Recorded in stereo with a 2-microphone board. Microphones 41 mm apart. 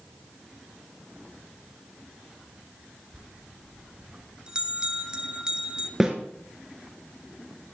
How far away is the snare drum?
About 1.8 m.